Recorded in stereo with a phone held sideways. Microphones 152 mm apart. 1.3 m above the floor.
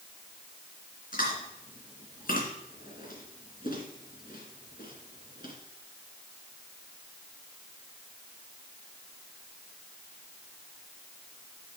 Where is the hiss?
I don't hear a hiss.